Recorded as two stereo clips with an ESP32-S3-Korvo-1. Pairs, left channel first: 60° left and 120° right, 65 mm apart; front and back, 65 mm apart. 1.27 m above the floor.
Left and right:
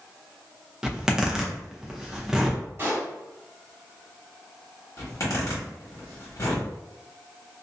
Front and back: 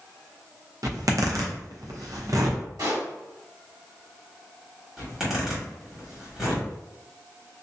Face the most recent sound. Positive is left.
turn(degrees=100)